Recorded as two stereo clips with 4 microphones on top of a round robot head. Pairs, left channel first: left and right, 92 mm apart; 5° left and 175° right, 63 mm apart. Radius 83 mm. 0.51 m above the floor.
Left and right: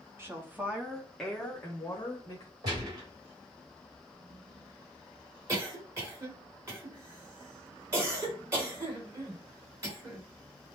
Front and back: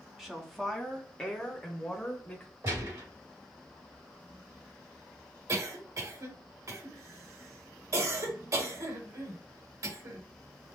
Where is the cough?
145° right, 2.5 m.